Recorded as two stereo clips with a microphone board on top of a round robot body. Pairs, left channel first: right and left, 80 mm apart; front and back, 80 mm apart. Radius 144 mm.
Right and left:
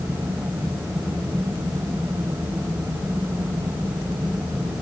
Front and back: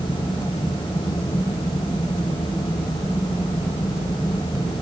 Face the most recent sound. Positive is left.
No sound to turn to.